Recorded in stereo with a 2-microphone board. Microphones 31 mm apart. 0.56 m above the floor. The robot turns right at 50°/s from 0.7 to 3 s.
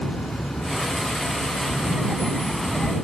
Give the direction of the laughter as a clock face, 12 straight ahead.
1 o'clock.